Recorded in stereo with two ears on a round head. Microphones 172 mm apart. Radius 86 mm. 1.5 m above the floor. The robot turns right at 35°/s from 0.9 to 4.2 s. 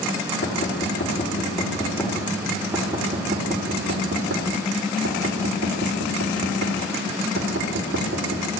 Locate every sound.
0.4 s knocking: 50° left (ahead or behind), 3.5 m; by 8.5 s 65° right (ahead or behind), 3.5 m